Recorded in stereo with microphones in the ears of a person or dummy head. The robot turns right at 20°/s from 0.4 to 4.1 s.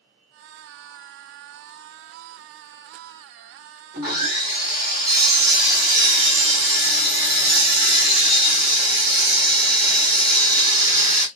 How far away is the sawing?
About 1.1 m.